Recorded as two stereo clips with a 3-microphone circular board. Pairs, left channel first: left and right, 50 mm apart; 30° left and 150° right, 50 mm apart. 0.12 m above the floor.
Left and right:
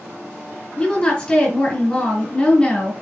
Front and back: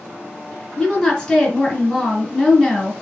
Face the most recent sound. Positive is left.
turn(degrees=85)